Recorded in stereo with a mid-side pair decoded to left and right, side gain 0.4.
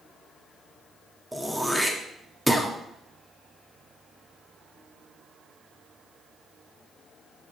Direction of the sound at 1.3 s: 10° right.